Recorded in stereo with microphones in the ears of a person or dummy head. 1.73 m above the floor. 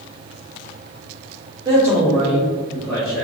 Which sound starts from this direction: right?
A man speaking, at 1.6 s.